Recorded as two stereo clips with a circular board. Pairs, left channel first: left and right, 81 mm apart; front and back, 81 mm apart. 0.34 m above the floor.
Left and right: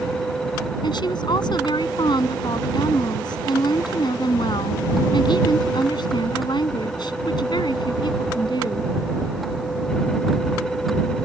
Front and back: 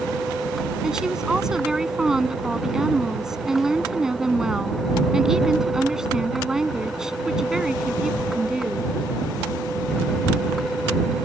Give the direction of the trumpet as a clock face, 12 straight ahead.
I don't hear a trumpet.